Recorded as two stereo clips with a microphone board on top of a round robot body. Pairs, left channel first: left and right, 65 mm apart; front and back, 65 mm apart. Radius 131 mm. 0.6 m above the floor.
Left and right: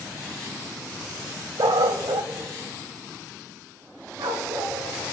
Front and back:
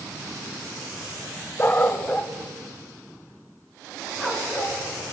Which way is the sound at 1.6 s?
60° right.